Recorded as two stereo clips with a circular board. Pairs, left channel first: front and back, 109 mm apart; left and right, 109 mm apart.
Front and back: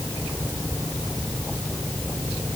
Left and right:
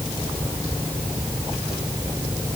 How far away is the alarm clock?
I don't hear an alarm clock.